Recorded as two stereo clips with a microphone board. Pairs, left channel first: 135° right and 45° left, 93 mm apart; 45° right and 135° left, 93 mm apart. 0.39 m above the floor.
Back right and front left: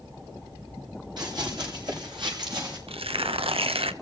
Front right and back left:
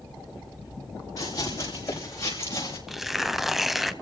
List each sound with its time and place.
1.2 s running footsteps: 5° left, 7 m; by 2.8 s 15° left, 6.5 m
2.9 s tearing paper: 45° left, 0.6 m